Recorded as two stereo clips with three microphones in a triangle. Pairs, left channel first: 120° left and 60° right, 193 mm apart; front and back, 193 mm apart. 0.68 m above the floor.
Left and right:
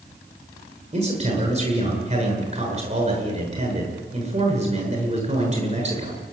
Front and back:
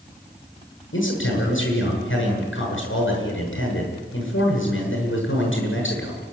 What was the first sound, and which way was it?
A man speaking, 5° right.